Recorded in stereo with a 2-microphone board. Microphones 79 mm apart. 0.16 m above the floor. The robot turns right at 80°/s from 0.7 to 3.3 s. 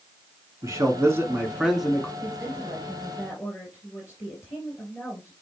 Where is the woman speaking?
50° right, 3 m; by 5.3 s 40° left, 3 m.